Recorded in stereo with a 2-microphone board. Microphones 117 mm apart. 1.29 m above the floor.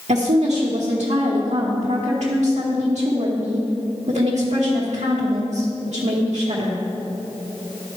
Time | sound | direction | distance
0.1 | a woman speaking | 75° right (ahead or behind) | 1.1 m